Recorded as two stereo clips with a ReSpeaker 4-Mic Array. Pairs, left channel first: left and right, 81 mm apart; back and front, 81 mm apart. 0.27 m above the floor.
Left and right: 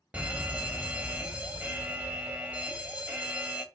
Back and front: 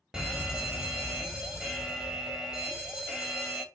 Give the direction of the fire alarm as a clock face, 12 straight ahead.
2 o'clock.